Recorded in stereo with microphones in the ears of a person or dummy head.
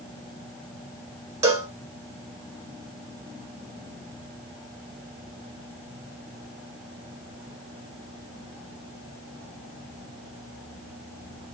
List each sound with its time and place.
1.4 s a cowbell: 20° right (ahead or behind), 1.0 m